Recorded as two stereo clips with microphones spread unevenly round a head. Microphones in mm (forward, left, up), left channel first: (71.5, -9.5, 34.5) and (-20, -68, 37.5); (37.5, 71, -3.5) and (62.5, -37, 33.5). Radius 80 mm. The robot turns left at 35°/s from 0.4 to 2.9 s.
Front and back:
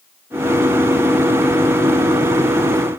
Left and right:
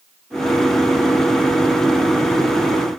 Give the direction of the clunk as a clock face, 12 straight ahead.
I don't hear a clunk.